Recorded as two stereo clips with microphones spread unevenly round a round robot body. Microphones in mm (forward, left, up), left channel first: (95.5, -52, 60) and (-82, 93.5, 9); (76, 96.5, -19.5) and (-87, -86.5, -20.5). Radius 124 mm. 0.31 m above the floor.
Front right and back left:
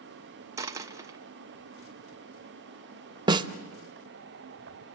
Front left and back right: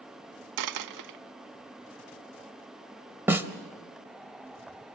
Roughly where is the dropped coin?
Behind right.